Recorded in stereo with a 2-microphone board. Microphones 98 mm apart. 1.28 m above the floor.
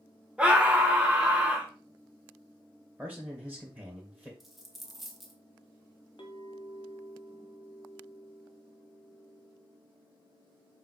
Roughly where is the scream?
Centre.